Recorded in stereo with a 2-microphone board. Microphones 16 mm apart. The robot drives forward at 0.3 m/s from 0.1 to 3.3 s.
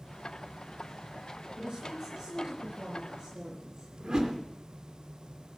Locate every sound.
1.6 s a woman speaking: 80° right, 4.5 m; by 3.9 s 75° right (ahead or behind), 4.5 m
4.0 s a whoosh: 70° right (ahead or behind), 2 m